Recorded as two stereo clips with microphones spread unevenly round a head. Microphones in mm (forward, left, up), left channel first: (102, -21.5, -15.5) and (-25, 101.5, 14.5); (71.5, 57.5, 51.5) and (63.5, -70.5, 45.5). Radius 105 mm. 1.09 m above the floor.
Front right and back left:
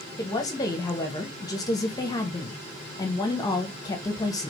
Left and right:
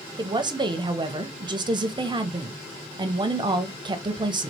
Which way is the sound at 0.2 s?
85° right.